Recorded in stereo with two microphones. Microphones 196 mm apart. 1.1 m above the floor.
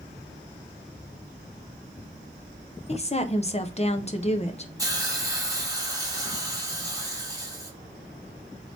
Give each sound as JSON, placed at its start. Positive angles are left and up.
{"t": 2.9, "sound": "a woman speaking", "side_deg": 35, "distance_m": 0.5}
{"t": 4.8, "sound": "a hiss", "side_deg": -15, "distance_m": 1.0}